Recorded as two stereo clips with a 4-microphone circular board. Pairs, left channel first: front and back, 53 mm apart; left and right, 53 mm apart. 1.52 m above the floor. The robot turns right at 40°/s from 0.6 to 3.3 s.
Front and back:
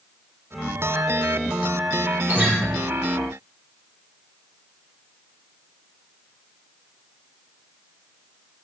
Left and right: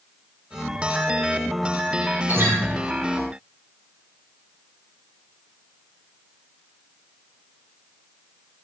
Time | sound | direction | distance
2.3 | a guitar | 130° right | 1.6 m